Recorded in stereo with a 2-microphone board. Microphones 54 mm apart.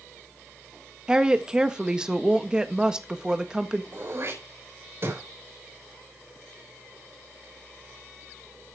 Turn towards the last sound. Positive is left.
turn(degrees=-50)  # may be behind; listen again after turning